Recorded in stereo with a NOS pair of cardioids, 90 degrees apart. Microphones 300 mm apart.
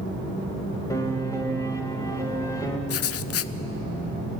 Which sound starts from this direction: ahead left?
Writing, at 2.9 s.